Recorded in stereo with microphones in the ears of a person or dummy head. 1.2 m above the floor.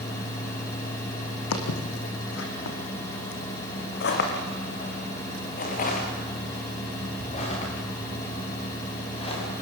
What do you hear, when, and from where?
1.5 s footsteps: 65° left (ahead or behind), 3.5 m; by 9.5 s 25° left (ahead or behind), 8.5 m